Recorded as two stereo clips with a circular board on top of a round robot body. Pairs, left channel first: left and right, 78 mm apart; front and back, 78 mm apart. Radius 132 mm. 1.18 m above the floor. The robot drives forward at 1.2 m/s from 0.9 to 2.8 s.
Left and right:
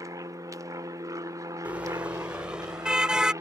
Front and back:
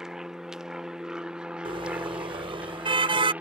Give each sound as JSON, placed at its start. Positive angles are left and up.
{"t": 0.0, "sound": "an aircraft", "azimuth_deg": -100}
{"t": 1.6, "sound": "a car horn", "azimuth_deg": -165}